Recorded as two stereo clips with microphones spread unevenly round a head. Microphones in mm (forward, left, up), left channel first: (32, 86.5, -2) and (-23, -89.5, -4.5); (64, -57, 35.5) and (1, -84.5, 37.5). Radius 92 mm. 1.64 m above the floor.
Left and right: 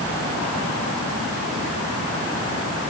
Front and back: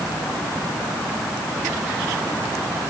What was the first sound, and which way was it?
Only background noise.